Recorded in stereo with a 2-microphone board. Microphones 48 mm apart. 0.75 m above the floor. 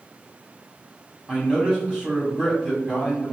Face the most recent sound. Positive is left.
turn(degrees=-5)  # may be behind; listen again after turning